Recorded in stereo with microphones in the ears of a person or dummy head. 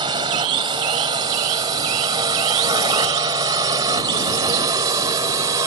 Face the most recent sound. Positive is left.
turn(degrees=-15)  # may be behind; listen again after turning